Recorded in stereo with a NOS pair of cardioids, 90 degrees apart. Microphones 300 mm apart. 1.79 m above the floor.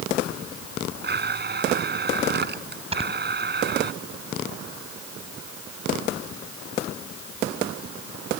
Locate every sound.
1.0 s a blender: 35° right
2.9 s snoring: 20° right